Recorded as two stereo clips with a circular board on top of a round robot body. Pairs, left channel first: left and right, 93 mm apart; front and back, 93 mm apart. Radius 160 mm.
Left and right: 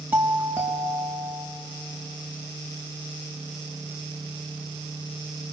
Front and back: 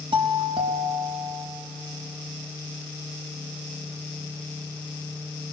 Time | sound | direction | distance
0.1 | a doorbell | 160° right | 3.5 m